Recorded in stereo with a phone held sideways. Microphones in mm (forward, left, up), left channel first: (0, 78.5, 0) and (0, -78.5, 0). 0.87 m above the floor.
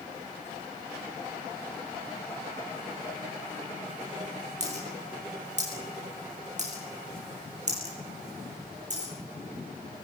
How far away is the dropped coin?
About 7 m.